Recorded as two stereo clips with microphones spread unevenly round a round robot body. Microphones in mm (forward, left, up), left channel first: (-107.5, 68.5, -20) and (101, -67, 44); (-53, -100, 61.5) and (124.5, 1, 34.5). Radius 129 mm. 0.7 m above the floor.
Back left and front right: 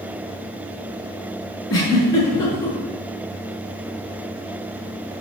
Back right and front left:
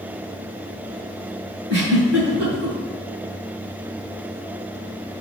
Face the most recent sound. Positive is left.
turn(degrees=70)